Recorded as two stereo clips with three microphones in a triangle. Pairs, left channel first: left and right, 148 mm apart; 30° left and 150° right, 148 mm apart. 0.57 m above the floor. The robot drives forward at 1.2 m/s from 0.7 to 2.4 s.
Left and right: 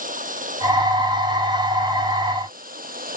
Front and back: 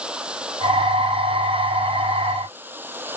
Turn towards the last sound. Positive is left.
turn(degrees=-75)